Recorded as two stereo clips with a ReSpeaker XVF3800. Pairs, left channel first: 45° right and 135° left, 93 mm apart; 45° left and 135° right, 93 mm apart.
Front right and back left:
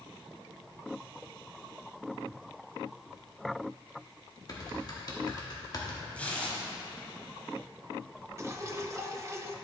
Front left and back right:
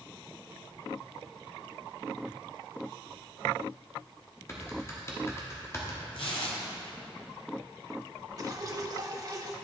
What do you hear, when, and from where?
4.5 s typing on a keyboard: 10° right, 1.1 m
6.1 s tearing paper: 30° left, 1.5 m
8.4 s dripping: 175° right, 0.5 m